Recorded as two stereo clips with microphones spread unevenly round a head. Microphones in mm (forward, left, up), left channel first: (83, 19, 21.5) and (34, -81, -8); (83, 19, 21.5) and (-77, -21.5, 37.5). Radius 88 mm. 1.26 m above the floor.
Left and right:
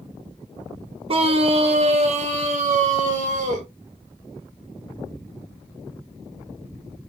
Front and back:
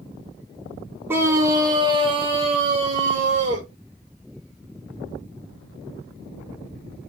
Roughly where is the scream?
Right.